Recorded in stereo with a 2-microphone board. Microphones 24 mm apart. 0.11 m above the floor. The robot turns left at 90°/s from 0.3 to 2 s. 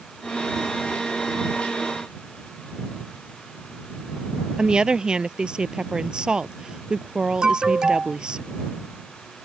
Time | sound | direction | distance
4.6 | a woman speaking | 35° right (ahead or behind) | ?
7.4 | an alarm | 35° right (ahead or behind) | ?